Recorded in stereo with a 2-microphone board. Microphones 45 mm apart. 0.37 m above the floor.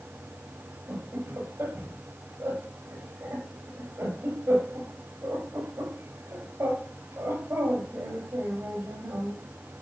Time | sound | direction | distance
0.9 | laughter | 85° right | 8.5 m